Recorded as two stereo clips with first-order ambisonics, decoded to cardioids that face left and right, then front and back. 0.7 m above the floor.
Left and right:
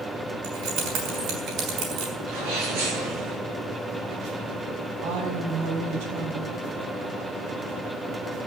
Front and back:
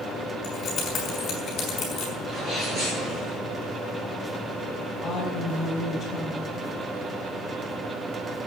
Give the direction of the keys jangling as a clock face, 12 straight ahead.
2 o'clock.